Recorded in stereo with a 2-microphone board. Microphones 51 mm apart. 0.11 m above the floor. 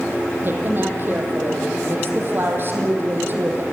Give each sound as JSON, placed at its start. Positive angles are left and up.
{"t": 0.4, "sound": "a woman speaking", "side_deg": -45, "distance_m": 4.5}